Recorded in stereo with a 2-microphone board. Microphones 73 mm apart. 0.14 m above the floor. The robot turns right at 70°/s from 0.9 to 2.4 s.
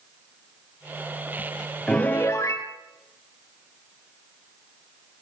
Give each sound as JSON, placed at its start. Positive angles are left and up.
{"t": 1.9, "sound": "a piano", "azimuth_deg": 10, "distance_m": 2.0}